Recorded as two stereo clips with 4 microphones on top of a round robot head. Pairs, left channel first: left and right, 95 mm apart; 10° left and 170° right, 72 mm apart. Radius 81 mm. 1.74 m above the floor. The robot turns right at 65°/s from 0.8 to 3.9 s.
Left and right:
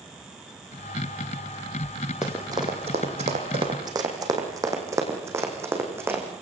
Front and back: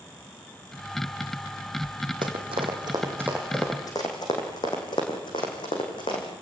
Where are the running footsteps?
175° right, 4 m; by 6.2 s 25° right, 5 m.